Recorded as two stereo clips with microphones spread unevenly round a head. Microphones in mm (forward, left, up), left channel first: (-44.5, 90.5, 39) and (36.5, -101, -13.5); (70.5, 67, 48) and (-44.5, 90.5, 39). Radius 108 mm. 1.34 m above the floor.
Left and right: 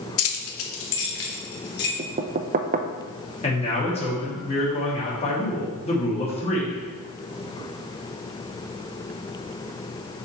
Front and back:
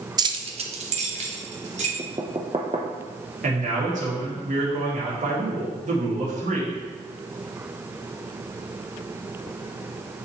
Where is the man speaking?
175° left, 3 m.